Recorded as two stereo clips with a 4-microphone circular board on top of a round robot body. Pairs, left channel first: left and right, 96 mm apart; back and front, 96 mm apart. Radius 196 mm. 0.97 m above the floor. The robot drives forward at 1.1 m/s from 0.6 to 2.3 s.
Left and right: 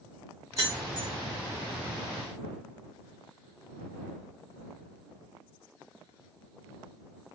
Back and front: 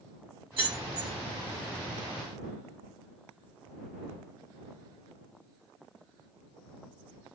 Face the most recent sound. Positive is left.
turn(degrees=-145)